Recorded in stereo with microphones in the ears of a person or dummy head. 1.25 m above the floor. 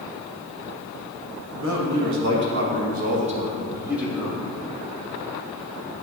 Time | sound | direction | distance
1.5 | a man speaking | 70° right (ahead or behind) | 1.8 m